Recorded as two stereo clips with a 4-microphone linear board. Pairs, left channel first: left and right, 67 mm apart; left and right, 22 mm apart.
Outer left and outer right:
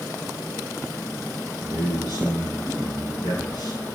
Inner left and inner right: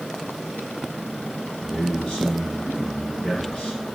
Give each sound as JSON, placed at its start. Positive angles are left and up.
{"t": 1.6, "sound": "a man speaking", "side_deg": 80, "distance_m": 8.0}